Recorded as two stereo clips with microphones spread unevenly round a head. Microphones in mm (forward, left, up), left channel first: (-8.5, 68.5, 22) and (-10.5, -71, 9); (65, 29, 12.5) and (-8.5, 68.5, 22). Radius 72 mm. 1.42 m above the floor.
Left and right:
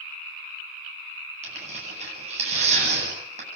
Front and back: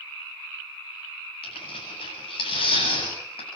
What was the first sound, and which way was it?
Tearing paper, 50° right.